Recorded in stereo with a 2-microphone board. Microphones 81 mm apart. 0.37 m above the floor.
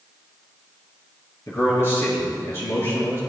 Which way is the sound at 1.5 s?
30° left (ahead or behind).